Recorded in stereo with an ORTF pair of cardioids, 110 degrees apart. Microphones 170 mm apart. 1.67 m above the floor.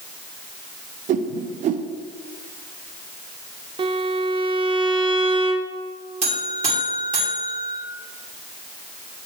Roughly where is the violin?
Ahead right.